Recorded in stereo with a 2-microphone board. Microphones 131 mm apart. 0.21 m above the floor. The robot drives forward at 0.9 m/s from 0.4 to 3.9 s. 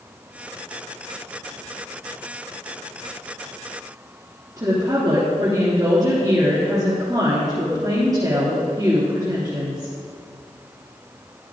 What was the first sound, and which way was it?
A woman speaking, 25° right (ahead or behind).